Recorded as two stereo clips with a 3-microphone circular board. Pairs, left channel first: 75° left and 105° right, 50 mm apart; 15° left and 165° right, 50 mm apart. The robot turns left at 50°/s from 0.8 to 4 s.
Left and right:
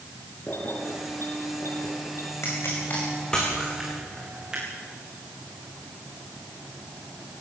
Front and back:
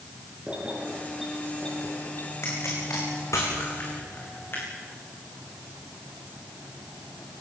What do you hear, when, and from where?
0.5 s keys jangling: 125° left, 6.5 m; by 2.3 s 55° left, 6.5 m
2.4 s a pop: 50° left, 7.5 m; by 4.7 s 30° right, 7.5 m